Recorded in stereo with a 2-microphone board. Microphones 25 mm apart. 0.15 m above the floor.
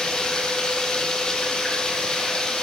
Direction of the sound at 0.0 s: 30° left (ahead or behind).